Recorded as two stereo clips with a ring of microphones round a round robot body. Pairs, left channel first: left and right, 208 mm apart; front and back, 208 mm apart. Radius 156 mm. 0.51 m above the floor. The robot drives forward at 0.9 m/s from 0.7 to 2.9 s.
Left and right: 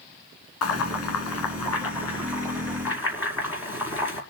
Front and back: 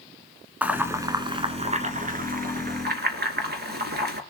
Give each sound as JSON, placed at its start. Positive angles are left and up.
{"t": 0.6, "sound": "boiling", "azimuth_deg": 95, "distance_m": 2.0}